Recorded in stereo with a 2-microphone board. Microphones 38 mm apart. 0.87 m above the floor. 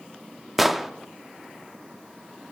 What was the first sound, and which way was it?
An explosion, 5° right (ahead or behind).